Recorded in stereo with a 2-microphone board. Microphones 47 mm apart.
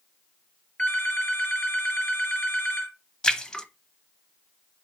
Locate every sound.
0.8 s a phone ringing: 25° left (ahead or behind), 3.5 m
3.2 s a splash: 15° left (ahead or behind), 0.8 m